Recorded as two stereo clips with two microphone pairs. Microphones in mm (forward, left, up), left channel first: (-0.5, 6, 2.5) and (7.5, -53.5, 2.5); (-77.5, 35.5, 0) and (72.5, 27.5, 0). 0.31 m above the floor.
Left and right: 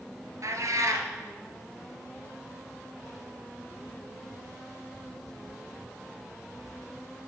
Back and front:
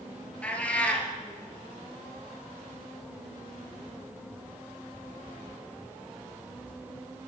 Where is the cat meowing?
105° right, 1.2 m.